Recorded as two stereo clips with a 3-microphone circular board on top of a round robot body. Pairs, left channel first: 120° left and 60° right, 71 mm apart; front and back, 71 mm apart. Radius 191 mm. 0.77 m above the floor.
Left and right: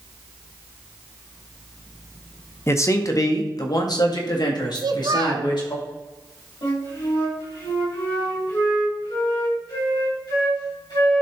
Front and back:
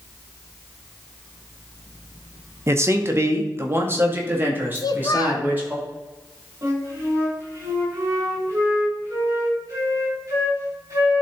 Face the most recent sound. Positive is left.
turn(degrees=130)